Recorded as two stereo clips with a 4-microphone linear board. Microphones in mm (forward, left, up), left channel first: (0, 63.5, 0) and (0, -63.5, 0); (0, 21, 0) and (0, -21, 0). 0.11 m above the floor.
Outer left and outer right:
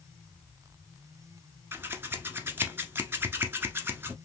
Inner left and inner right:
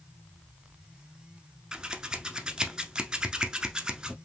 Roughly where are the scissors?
Centre.